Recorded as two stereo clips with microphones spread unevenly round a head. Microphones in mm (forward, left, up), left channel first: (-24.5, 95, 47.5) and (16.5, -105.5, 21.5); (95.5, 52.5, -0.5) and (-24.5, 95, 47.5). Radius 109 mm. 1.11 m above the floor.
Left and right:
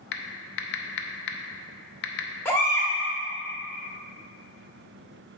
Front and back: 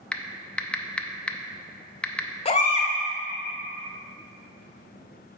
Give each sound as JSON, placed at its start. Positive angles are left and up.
{"t": 0.1, "sound": "typing on a keyboard", "azimuth_deg": 75, "distance_m": 0.6}
{"t": 2.5, "sound": "a baby crying", "azimuth_deg": 25, "distance_m": 0.9}